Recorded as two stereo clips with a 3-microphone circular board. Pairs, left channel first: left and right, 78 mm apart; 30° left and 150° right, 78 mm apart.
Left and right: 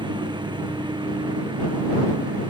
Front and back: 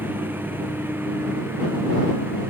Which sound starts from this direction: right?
A lawn mower, at 0.0 s.